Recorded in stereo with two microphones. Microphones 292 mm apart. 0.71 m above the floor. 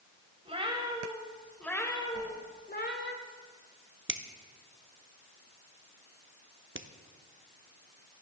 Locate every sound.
0.5 s a cat meowing: 20° right (ahead or behind), 2 m; by 3.1 s 40° left (ahead or behind), 1.9 m
2.1 s a whoosh: 60° right (ahead or behind), 2.5 m
4.1 s a finger snap: 45° right (ahead or behind), 0.8 m